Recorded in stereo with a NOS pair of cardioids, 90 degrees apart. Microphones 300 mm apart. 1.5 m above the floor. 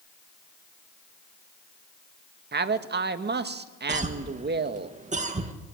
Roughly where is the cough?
Ahead right.